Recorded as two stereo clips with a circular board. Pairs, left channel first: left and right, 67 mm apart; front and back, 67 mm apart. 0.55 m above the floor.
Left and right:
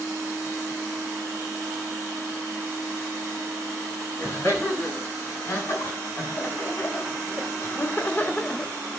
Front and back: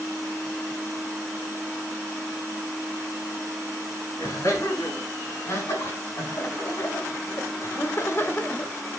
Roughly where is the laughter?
Ahead left.